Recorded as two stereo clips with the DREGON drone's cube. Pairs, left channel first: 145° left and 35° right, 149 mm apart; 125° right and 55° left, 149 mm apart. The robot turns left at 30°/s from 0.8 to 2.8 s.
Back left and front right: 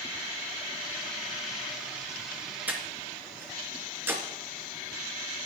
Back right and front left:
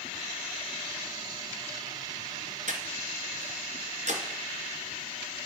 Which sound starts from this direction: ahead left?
Breathing, at 2.7 s.